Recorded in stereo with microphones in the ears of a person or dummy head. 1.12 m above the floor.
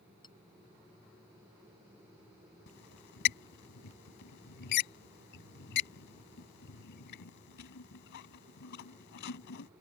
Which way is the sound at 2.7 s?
60° left (ahead or behind).